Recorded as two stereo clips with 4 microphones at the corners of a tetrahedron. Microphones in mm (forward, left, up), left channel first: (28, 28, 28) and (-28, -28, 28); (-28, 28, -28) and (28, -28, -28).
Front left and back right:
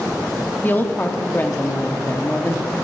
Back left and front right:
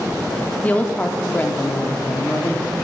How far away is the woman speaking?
About 0.7 m.